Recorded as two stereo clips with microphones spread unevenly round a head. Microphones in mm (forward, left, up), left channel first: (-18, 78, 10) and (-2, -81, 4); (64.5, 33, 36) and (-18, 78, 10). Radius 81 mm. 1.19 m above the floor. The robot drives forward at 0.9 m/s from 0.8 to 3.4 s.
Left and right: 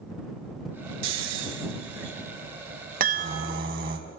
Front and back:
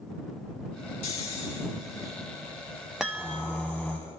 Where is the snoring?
75° right, 3 m; by 4.0 s 115° right, 3.5 m.